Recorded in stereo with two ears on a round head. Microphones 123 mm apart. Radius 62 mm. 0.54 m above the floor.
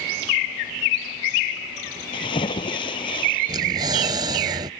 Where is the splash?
40° left (ahead or behind).